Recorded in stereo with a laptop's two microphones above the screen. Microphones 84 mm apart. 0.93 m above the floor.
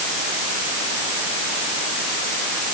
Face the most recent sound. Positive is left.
No sound to turn to.